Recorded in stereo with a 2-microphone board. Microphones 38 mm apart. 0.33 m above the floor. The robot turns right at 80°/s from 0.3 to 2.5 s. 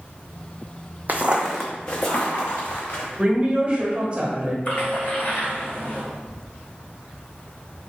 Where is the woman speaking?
25° right (ahead or behind), 1.3 m.